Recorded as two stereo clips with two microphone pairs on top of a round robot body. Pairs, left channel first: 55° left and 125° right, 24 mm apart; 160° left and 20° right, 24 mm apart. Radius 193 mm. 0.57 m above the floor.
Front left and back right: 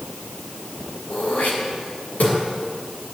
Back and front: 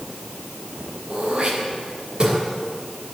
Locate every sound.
1.1 s throat clearing: 30° left, 3 m